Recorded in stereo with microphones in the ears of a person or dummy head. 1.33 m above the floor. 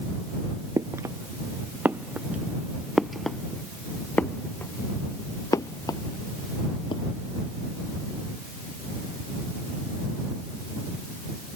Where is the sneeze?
I don't hear a sneeze.